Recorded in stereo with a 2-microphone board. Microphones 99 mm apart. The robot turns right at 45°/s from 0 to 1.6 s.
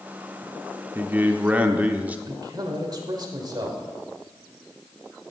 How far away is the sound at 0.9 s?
About 0.7 m.